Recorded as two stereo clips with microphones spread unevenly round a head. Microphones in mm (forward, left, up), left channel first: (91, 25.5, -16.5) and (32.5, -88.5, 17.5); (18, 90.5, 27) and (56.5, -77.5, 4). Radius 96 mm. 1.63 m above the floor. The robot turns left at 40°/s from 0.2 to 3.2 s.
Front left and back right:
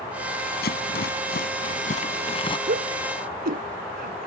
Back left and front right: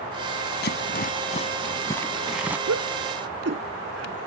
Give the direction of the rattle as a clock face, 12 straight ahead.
9 o'clock.